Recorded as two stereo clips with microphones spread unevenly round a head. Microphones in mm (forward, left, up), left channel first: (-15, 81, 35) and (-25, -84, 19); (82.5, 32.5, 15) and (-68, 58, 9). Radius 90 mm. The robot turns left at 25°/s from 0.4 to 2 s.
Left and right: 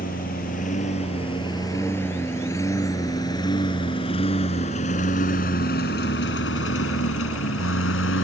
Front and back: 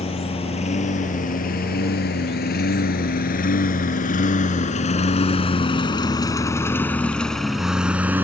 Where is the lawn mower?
40° left; by 8.2 s 90° left.